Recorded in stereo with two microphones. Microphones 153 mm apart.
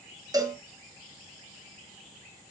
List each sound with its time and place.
0.3 s a cowbell: 25° right (ahead or behind), 2.5 m